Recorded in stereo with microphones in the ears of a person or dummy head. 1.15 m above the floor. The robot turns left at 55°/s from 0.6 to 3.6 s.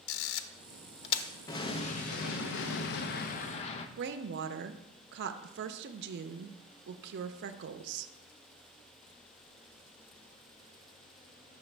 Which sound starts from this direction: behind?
An explosion, at 1.5 s.